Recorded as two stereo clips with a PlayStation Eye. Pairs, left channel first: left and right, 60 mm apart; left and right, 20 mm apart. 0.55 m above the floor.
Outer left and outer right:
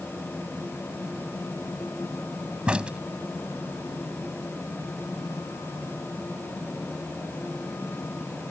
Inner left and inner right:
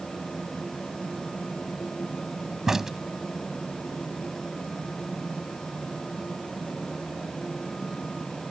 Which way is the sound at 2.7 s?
20° right (ahead or behind).